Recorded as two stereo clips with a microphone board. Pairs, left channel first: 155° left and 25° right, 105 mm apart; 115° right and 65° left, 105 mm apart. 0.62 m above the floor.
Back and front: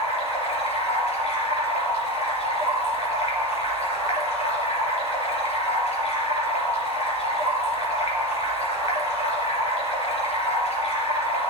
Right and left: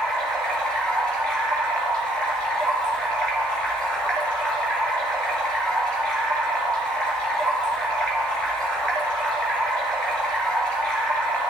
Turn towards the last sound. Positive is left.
turn(degrees=165)